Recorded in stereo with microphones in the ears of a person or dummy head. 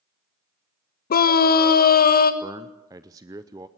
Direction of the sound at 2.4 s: 15° right (ahead or behind).